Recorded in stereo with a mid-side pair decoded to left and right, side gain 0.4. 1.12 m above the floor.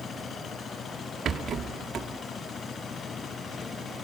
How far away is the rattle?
About 1.8 m.